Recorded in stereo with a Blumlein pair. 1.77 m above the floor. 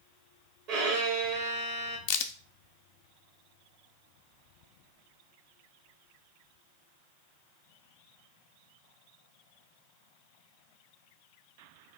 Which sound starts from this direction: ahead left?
A crack, at 2.1 s.